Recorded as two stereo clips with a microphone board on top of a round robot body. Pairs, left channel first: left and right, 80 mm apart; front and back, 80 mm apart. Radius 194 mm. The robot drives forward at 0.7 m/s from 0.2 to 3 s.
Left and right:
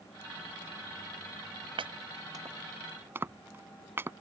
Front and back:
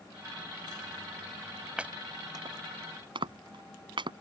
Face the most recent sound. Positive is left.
turn(degrees=-155)